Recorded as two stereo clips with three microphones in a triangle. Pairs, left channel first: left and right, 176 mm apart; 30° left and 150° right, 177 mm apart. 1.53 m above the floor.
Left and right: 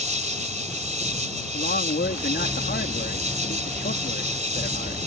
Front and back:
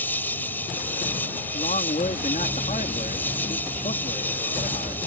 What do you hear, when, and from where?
0.0 s an insect: 50° right
1.5 s a man speaking: 75° left